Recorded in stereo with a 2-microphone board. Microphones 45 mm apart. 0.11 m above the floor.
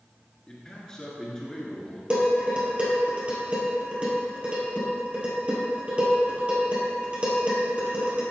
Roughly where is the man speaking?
Centre.